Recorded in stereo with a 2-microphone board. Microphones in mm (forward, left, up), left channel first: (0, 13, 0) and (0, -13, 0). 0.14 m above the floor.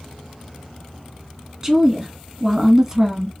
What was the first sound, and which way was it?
A woman speaking, 20° right (ahead or behind).